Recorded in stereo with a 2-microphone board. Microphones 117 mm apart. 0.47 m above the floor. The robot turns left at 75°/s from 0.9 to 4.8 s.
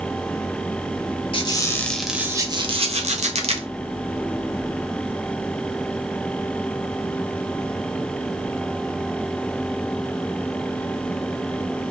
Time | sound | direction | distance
1.3 | a squeak | 50° left | 1.1 m